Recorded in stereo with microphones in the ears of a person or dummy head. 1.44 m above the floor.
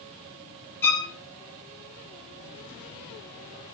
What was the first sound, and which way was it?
A violin, 15° left (ahead or behind).